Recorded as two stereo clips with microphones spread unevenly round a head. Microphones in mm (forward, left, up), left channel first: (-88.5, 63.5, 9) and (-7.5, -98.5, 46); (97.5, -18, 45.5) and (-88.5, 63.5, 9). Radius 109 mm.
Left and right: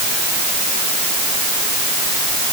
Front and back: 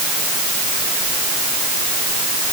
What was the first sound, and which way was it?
Only background noise.